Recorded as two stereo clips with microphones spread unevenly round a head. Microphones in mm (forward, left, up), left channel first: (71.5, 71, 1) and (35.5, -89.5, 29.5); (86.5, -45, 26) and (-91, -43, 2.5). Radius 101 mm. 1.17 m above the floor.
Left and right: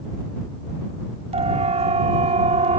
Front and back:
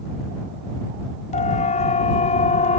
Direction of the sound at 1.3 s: 50° right.